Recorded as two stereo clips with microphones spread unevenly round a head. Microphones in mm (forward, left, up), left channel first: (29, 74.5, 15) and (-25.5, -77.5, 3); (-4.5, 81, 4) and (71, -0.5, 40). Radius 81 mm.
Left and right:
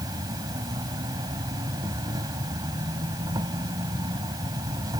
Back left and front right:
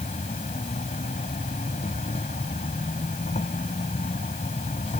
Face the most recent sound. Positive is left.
turn(degrees=180)